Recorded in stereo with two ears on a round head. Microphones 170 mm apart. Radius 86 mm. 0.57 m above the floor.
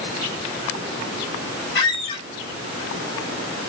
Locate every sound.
1.8 s a squeak: 65° left (ahead or behind), 2.5 m